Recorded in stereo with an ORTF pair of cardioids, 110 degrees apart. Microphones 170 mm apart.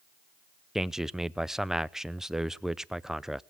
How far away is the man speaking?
About 0.5 m.